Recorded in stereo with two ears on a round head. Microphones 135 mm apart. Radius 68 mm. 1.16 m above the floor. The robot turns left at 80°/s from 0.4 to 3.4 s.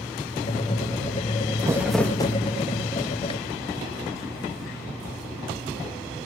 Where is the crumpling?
155° right, 0.8 m; by 2.4 s 145° left, 0.8 m.